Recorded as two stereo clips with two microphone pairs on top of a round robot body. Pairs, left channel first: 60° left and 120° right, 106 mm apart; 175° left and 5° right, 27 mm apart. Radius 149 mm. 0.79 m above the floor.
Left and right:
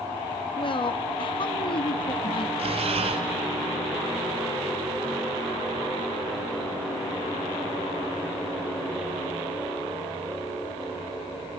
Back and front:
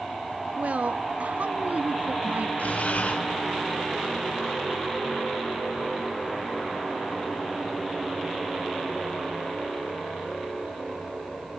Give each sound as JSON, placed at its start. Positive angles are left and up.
{"t": 0.6, "sound": "a woman speaking", "azimuth_deg": 25, "distance_m": 1.4}
{"t": 2.6, "sound": "breathing", "azimuth_deg": -150, "distance_m": 1.3}